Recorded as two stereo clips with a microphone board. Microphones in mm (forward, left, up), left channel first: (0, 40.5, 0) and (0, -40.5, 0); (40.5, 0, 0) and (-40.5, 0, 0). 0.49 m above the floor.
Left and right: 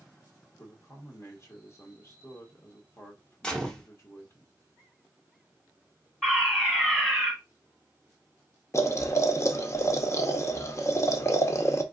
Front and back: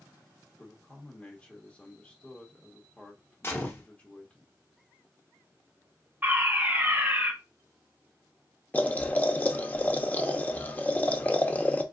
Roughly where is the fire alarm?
Behind.